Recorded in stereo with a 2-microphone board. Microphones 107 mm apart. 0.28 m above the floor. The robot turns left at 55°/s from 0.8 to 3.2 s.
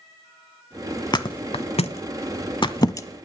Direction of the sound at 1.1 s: 40° left (ahead or behind).